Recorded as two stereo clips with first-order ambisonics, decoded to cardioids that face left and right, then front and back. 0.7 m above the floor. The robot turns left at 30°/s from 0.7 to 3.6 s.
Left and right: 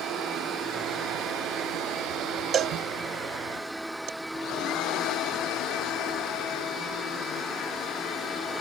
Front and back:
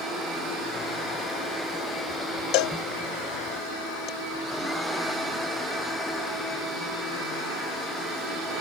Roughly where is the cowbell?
Ahead right.